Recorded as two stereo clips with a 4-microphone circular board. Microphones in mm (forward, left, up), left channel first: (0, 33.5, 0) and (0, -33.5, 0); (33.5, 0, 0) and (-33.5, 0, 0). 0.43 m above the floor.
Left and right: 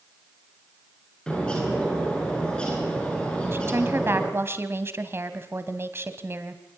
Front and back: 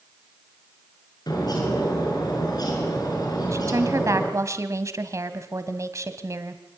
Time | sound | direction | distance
1.3 | a bird | 15° left | 7 m
3.5 | a woman speaking | 140° right | 2.5 m